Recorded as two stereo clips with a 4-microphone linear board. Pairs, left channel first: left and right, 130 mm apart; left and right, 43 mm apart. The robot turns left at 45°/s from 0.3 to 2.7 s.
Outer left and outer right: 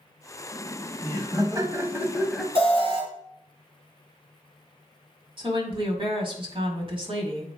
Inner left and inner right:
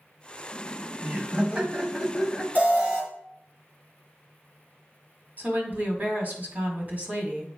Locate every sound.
0.5 s laughter: 95° right, 1.3 m; by 2.5 s straight behind, 1.3 m
2.5 s an alarm: 45° right (ahead or behind), 2.5 m
5.4 s a woman speaking: 40° right (ahead or behind), 1.7 m